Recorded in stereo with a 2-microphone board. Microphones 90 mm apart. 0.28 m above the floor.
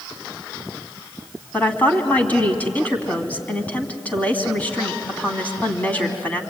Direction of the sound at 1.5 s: 15° left (ahead or behind).